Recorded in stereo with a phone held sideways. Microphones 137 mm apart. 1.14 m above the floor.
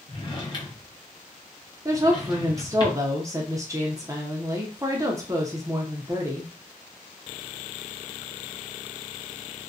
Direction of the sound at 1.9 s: 20° right (ahead or behind).